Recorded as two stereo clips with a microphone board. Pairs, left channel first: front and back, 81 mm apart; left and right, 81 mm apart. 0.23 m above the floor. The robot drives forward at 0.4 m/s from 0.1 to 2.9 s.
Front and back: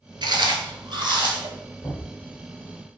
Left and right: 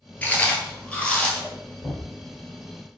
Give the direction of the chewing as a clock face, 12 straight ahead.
7 o'clock.